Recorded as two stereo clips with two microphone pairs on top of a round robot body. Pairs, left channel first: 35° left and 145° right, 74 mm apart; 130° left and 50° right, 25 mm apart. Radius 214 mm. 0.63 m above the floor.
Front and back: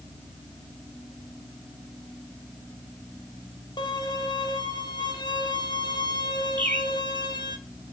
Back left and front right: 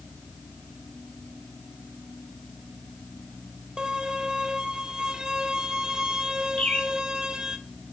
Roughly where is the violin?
Ahead.